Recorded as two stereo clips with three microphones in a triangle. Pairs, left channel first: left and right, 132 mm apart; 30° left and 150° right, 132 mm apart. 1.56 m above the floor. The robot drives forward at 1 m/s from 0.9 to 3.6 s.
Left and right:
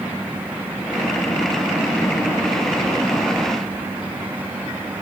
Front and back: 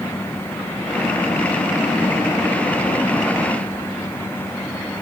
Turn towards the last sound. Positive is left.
No sound to turn to.